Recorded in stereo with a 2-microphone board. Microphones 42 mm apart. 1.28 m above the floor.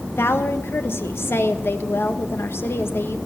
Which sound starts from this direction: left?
A woman speaking, at 0.2 s.